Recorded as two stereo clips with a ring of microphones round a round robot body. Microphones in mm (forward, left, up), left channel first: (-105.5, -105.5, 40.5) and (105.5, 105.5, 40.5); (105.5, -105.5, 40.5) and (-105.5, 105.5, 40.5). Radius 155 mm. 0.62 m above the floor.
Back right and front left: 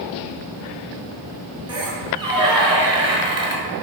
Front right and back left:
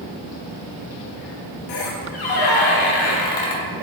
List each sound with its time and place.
1.7 s a squeak: 30° right, 0.8 m